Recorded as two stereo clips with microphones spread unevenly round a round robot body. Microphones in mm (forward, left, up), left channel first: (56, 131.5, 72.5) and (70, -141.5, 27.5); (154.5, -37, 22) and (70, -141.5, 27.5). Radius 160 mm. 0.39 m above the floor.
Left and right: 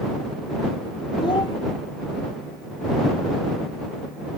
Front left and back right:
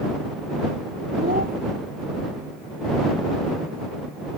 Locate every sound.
1.2 s a child speaking: 170° left